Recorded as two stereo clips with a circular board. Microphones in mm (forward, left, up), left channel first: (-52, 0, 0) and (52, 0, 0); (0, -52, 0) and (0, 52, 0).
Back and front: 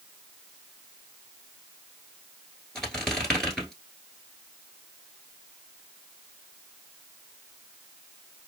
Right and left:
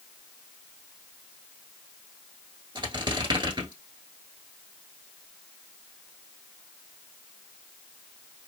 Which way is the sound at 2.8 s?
100° left.